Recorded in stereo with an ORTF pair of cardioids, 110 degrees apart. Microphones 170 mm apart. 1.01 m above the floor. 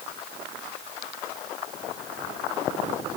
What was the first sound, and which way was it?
Only background noise.